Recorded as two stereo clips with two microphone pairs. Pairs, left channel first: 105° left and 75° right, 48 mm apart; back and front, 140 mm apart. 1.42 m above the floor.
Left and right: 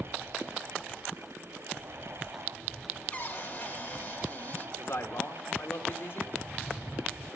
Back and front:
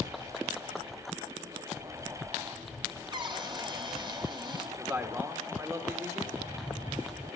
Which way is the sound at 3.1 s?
50° left.